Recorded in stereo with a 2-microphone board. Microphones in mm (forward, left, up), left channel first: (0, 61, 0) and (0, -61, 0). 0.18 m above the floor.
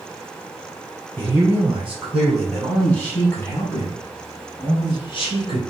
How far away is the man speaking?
About 1.9 m.